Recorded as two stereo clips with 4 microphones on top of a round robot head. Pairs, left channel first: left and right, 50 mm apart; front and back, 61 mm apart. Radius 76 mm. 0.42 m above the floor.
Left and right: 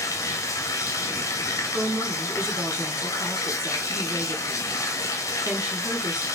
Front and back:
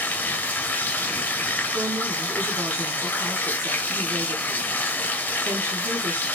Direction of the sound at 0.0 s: 65° left.